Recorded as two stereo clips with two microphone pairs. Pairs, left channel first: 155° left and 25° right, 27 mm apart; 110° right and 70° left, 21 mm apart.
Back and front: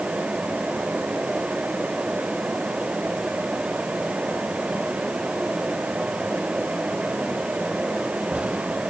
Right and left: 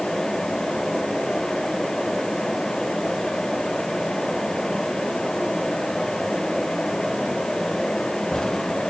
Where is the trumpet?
I don't hear a trumpet.